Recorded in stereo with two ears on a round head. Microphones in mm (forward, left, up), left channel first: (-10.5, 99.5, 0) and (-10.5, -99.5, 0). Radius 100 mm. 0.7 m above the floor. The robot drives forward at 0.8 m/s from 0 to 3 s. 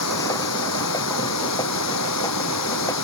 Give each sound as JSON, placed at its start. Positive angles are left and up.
{"t": 0.0, "sound": "running water", "side_deg": 75}